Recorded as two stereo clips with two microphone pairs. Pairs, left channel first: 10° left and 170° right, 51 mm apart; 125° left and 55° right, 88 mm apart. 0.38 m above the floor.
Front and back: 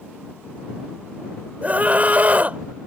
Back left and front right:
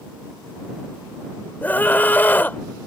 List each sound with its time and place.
1.6 s a scream: 175° left